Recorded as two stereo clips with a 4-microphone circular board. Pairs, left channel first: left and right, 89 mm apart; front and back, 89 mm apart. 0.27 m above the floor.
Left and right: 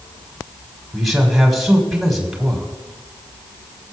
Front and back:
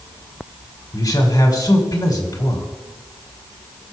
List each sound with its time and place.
0.9 s a man speaking: straight ahead, 2 m